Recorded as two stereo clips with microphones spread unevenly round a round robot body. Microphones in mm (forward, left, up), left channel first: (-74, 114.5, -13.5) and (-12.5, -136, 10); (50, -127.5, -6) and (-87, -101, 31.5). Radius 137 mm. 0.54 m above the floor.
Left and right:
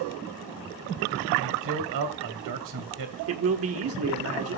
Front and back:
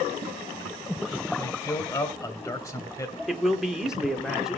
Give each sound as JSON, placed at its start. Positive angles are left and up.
{"t": 1.4, "sound": "a man speaking", "azimuth_deg": -75, "distance_m": 2.0}
{"t": 3.3, "sound": "a man speaking", "azimuth_deg": -95, "distance_m": 1.7}